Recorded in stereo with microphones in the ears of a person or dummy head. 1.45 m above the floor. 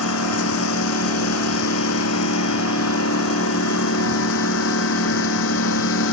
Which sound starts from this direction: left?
A lawn mower, at 0.0 s.